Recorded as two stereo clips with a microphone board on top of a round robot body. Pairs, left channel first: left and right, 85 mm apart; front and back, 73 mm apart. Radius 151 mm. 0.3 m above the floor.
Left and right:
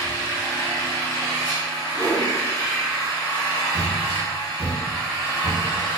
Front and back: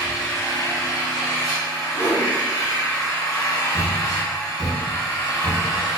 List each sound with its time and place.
0.0 s an engine running: 40° left, 0.8 m
1.9 s a whoosh: 35° left, 1.9 m
3.7 s a thud: 40° right, 1.0 m